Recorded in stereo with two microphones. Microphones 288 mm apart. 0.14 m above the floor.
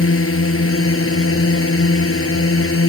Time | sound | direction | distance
0.0 | a drone | 50° left (ahead or behind) | ?